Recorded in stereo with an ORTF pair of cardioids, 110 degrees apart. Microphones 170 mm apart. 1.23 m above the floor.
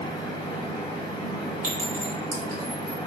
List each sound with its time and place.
0.0 s a fan: 25° left, 0.9 m
1.6 s a clink: 55° right, 1.3 m